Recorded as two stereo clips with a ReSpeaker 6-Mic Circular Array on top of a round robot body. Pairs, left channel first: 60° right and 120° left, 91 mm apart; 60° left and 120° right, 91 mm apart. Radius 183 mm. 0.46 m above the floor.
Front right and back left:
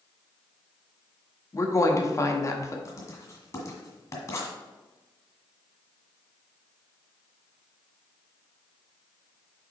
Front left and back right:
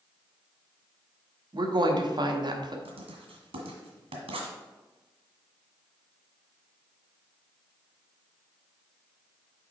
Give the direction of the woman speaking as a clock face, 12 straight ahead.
4 o'clock.